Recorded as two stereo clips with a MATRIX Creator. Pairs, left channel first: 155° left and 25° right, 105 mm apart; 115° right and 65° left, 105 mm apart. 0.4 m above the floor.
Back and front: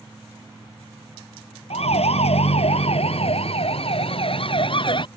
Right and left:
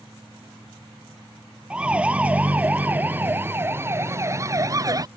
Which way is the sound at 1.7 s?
150° left.